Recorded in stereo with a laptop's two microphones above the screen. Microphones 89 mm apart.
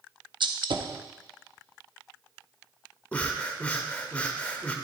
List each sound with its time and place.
0.4 s a gunshot: 65° right (ahead or behind), 0.6 m
3.1 s breathing: 15° left (ahead or behind), 0.7 m